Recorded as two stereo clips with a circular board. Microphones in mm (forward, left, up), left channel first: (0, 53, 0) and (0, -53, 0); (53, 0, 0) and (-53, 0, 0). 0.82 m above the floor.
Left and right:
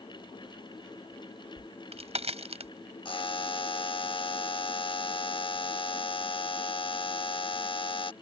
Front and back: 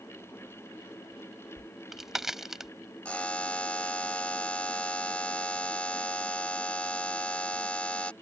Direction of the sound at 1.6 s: 95° right.